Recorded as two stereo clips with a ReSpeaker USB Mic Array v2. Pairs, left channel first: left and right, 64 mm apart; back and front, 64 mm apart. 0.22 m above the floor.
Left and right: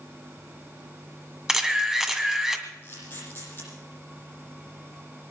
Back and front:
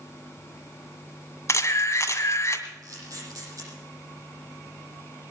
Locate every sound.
1.5 s a camera shutter: 170° right, 2.0 m
2.8 s a camera shutter: 35° left, 9.5 m